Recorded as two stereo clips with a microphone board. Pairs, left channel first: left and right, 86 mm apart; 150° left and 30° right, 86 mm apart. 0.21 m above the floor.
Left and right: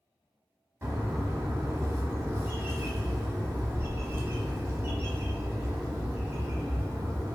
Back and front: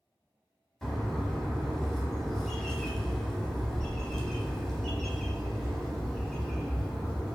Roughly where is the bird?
Behind right.